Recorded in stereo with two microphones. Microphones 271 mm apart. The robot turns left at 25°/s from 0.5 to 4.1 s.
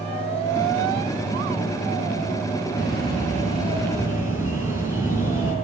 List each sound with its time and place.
2.8 s a bird: 135° right, 4.5 m; by 5.5 s 170° right, 4.5 m